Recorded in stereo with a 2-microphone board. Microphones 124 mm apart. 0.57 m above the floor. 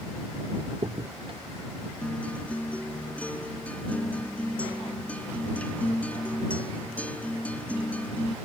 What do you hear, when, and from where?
0.7 s a crack: 45° right (ahead or behind)
2.0 s a guitar: 10° left (ahead or behind)